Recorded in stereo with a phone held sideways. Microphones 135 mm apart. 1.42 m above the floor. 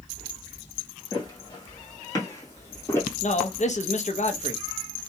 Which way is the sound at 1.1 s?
30° left (ahead or behind).